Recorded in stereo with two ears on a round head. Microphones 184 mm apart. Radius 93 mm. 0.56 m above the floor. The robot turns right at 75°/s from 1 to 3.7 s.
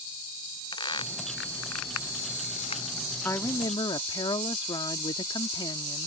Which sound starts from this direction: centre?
A woman speaking, at 3.2 s.